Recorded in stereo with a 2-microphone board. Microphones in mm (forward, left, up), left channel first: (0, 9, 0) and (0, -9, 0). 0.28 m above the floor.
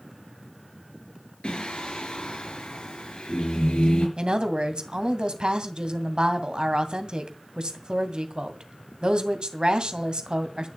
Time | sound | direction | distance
1.4 | singing | 75° left (ahead or behind) | 5 m
4.2 | a woman speaking | 45° right (ahead or behind) | 2 m